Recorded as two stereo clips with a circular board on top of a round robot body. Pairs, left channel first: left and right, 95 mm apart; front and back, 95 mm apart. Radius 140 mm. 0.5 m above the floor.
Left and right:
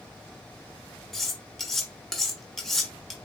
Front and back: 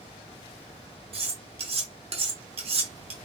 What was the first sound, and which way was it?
Cutlery clinking, straight behind.